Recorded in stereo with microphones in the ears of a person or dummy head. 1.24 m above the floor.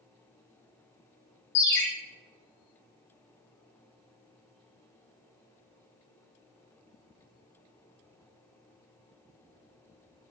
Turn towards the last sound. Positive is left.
turn(degrees=55)  # may be behind; listen again after turning